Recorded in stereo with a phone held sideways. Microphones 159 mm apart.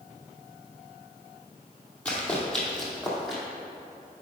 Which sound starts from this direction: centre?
Running footsteps, at 2.0 s.